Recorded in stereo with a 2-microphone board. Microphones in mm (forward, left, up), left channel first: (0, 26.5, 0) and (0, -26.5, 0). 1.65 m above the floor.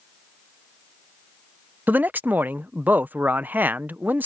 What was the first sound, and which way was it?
A man speaking, 40° right (ahead or behind).